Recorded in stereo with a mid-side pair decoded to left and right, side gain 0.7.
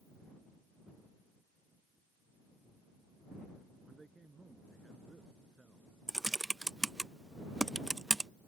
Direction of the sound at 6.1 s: 10° right.